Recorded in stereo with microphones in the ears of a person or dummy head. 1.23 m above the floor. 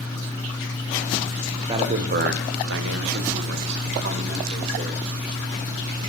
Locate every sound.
1.7 s a man speaking: 25° right (ahead or behind), 0.5 m; by 5.1 s 55° right (ahead or behind), 1.9 m